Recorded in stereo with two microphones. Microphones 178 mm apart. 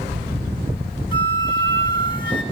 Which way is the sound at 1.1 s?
25° left (ahead or behind).